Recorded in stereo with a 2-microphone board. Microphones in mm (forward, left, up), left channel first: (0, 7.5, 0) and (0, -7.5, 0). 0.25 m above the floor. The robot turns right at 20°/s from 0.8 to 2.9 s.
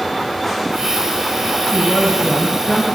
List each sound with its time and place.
1.7 s a woman speaking: 30° left (ahead or behind), 1.5 m; by 2.9 s 35° left (ahead or behind), 1.5 m